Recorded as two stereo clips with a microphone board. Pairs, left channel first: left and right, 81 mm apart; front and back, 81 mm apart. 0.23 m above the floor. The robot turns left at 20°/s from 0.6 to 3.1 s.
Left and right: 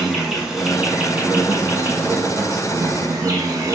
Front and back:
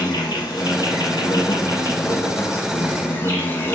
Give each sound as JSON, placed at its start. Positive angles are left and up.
{"t": 0.0, "sound": "an insect", "azimuth_deg": -10, "distance_m": 1.3}